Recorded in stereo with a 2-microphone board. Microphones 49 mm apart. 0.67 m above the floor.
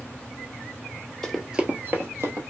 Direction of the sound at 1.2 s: 10° left (ahead or behind).